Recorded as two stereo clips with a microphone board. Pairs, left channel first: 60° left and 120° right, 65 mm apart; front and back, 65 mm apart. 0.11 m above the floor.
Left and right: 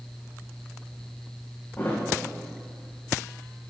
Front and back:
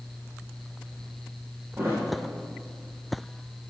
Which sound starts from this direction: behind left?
A thud, at 1.8 s.